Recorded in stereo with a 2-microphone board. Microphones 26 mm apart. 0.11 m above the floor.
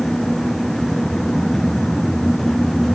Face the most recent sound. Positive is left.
No sound to turn to.